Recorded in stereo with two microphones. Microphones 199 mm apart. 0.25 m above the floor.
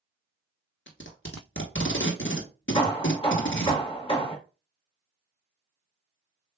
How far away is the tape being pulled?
About 1.1 m.